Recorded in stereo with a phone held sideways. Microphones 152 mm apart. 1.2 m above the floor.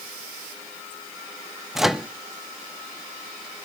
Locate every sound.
1.8 s a microwave: centre (ahead or behind), 0.5 m